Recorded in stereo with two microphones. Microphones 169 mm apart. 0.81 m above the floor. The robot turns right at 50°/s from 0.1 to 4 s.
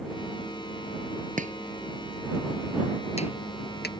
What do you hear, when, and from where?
1.4 s chopping: 50° right (ahead or behind); by 3.9 s 75° left (ahead or behind)